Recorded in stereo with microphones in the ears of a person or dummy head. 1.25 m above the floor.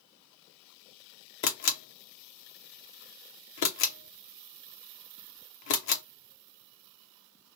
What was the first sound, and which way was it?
A camera shutter, 60° left (ahead or behind).